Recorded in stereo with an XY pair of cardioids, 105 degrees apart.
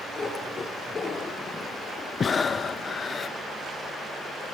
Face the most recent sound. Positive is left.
turn(degrees=30)